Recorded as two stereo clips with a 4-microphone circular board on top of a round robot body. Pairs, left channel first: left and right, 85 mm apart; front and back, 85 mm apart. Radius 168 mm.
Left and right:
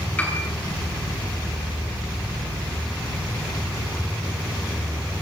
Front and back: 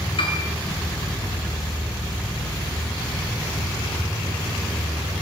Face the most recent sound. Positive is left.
turn(degrees=15)